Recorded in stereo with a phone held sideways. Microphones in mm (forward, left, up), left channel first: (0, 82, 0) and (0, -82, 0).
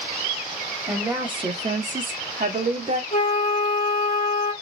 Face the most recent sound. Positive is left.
turn(degrees=55)  # may be behind; listen again after turning